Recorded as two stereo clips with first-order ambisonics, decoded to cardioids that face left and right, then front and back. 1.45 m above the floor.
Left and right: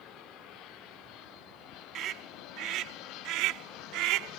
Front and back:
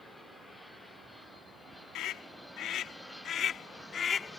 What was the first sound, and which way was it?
A scream, 40° right.